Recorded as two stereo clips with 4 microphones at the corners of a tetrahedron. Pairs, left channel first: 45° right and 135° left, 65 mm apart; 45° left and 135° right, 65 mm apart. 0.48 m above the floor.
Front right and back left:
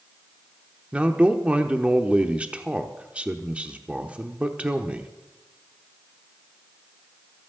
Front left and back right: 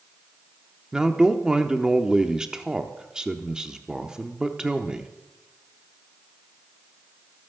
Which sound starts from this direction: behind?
A man speaking, at 0.9 s.